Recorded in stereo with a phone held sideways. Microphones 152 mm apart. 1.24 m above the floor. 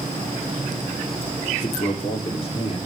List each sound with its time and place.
1.6 s a man speaking: 40° left (ahead or behind), 2.5 m; by 2.8 s 35° left (ahead or behind), 3.5 m